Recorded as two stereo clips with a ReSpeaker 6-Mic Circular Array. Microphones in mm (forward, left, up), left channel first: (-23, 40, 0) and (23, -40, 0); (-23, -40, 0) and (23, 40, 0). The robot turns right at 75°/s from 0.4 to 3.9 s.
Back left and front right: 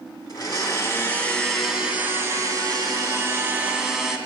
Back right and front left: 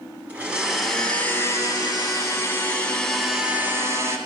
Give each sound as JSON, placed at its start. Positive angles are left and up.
{"t": 0.3, "sound": "a blender", "azimuth_deg": 120, "distance_m": 1.5}